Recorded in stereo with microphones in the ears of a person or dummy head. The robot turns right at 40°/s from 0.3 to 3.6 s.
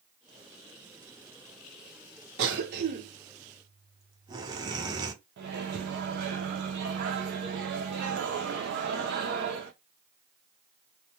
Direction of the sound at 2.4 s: 75° right.